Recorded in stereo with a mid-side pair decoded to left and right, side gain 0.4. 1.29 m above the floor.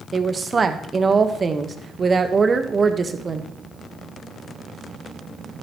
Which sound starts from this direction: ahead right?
A woman speaking, at 0.1 s.